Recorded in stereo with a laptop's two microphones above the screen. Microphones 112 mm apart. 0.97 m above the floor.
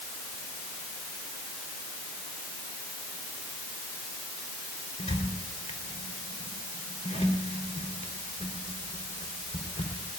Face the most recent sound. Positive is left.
turn(degrees=85)